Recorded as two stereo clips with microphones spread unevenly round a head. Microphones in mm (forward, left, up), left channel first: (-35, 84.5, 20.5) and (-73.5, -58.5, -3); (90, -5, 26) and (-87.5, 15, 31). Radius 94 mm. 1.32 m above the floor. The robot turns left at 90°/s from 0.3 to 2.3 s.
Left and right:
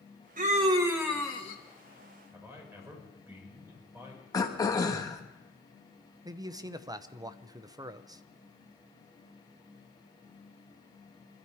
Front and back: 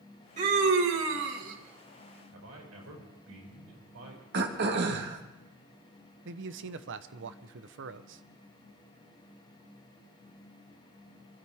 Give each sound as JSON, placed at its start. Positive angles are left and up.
{"t": 0.4, "sound": "a scream", "azimuth_deg": -135, "distance_m": 2.0}
{"t": 2.3, "sound": "a man speaking", "azimuth_deg": 180, "distance_m": 6.0}
{"t": 4.3, "sound": "throat clearing", "azimuth_deg": 140, "distance_m": 1.6}
{"t": 6.2, "sound": "a man speaking", "azimuth_deg": -170, "distance_m": 0.8}